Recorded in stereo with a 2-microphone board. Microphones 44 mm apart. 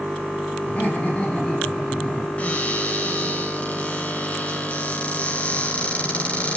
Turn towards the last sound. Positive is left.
turn(degrees=35)  # may be behind; listen again after turning